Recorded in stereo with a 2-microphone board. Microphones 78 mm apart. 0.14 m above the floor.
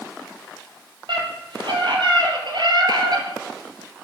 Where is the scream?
75° right (ahead or behind), 4.5 m; by 3.3 s 55° right (ahead or behind), 2.5 m.